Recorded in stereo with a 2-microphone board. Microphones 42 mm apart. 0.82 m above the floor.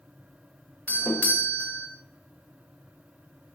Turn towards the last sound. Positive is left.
turn(degrees=40)  # may be behind; listen again after turning